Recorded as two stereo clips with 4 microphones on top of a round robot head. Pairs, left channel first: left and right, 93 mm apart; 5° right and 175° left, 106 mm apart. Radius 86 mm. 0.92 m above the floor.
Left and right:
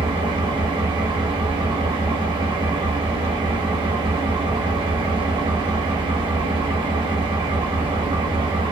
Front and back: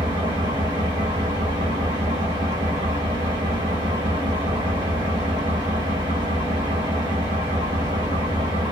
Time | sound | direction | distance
0.0 | an engine running | 125° right | 1.0 m